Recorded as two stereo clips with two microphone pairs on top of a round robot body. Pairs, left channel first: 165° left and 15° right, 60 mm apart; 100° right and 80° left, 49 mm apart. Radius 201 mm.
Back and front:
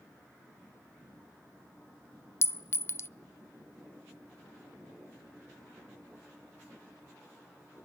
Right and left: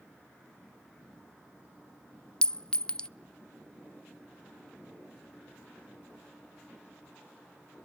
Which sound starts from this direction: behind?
A clink, at 2.4 s.